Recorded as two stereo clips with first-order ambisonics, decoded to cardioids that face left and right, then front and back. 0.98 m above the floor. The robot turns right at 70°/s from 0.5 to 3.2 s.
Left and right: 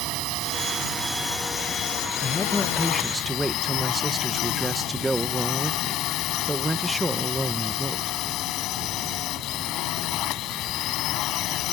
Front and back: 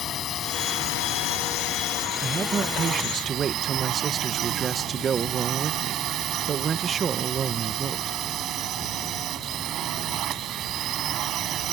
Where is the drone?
55° right; by 11.7 s 130° left.